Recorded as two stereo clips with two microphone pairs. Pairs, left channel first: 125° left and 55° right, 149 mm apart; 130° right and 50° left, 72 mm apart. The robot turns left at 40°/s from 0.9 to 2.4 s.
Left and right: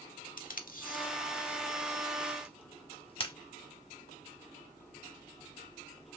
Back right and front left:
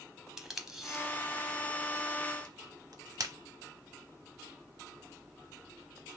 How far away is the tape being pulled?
About 0.6 m.